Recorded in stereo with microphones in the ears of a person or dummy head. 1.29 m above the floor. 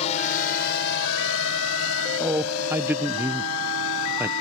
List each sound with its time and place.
0.0 s a drone: 40° left (ahead or behind); by 4.4 s 75° left (ahead or behind)
2.2 s a man speaking: 10° right (ahead or behind)